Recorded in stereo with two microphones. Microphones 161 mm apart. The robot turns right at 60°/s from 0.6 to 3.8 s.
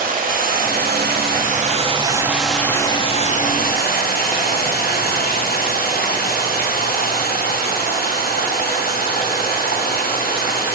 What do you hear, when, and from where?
0.0 s running water: 110° right, 1.2 m; by 10.8 s 80° left, 1.2 m